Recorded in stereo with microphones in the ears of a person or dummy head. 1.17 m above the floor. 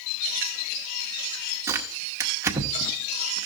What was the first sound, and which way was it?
Tearing paper, 15° right (ahead or behind).